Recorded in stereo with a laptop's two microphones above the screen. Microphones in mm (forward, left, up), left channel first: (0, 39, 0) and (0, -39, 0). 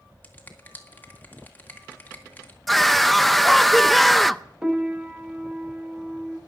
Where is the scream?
Centre (ahead or behind), 0.5 m.